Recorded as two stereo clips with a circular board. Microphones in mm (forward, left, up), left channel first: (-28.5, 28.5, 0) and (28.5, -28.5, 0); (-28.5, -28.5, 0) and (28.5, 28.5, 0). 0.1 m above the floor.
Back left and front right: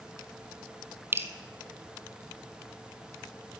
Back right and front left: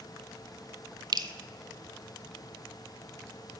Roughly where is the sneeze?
No sneeze in this recording.